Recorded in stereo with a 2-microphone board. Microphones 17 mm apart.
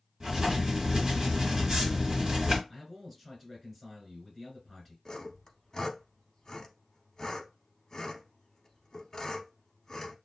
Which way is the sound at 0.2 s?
50° right (ahead or behind).